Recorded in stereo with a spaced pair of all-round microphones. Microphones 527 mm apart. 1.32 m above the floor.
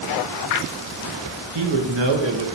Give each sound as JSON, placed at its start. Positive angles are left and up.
{"t": 1.6, "sound": "a man speaking", "side_deg": -55, "distance_m": 0.6}